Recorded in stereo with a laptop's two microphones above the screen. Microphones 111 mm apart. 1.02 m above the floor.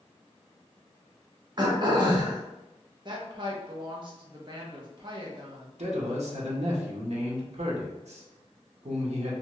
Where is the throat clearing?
40° right (ahead or behind), 0.6 m.